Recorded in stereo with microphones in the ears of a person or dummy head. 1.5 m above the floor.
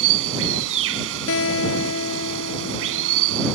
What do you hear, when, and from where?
0.0 s running water: 70° right (ahead or behind)
1.3 s a guitar: 75° left (ahead or behind)